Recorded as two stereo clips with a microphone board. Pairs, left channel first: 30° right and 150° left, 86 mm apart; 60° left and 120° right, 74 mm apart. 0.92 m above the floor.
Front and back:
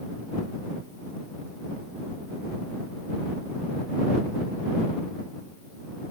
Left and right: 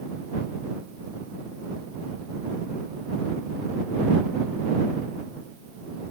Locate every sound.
Only background noise.